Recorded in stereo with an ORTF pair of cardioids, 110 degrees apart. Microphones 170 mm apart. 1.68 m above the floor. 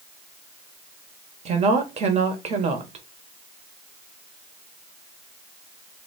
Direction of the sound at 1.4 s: 40° right.